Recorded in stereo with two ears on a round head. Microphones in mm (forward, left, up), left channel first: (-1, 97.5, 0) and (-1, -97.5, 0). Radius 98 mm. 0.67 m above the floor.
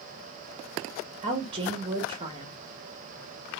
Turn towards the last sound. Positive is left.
turn(degrees=-25)  # may be behind; listen again after turning